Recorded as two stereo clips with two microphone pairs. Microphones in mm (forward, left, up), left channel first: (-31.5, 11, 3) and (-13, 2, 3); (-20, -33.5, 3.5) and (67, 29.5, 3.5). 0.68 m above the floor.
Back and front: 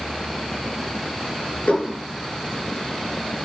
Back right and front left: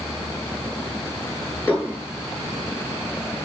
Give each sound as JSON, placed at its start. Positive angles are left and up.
{"t": 1.7, "sound": "dishes clattering", "azimuth_deg": 145, "distance_m": 6.0}